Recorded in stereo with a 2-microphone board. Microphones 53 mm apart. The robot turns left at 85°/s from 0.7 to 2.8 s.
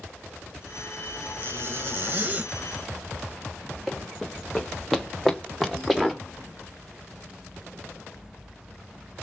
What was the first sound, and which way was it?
A zipper, 55° right.